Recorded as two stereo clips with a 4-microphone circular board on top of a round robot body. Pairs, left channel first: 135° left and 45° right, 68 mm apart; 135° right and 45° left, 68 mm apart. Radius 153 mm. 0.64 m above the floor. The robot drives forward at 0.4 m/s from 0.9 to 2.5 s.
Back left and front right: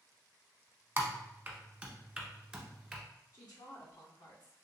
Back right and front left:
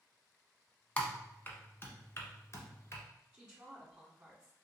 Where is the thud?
No thud in this recording.